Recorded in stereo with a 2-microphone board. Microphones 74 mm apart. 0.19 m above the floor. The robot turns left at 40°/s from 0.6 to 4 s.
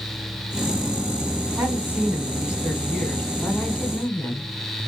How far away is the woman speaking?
About 1.5 m.